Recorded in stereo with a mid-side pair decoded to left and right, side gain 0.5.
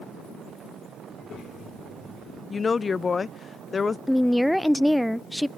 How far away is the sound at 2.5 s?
About 0.5 m.